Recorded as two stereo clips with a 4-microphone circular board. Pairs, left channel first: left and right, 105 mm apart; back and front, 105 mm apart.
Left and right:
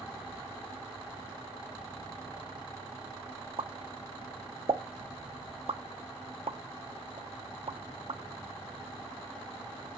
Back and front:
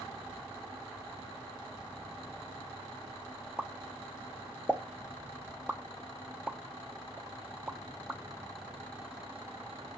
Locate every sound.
3.6 s a pop: 80° right, 0.6 m